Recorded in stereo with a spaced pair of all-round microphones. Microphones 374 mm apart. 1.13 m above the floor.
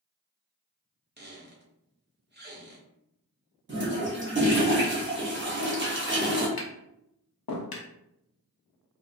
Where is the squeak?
30° right (ahead or behind), 0.6 m.